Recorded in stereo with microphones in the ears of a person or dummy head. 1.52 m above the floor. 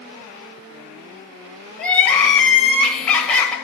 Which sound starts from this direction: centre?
Crying, at 1.8 s.